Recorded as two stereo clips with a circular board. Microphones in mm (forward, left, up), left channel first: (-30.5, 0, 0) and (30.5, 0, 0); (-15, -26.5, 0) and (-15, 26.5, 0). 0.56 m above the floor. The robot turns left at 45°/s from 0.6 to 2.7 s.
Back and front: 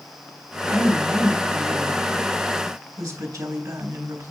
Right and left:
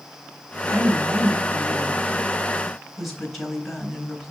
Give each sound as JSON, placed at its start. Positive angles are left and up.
{"t": 0.7, "sound": "a woman speaking", "azimuth_deg": 90, "distance_m": 3.0}